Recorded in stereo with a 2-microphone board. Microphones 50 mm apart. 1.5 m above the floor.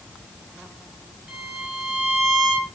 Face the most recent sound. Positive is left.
turn(degrees=-5)  # may be behind; listen again after turning